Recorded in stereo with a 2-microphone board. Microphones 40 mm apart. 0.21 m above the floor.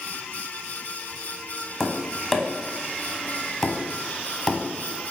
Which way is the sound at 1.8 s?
10° left (ahead or behind).